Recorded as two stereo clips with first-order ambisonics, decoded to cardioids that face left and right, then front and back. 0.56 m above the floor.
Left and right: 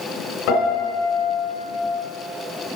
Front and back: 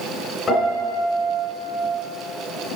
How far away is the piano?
About 2.5 m.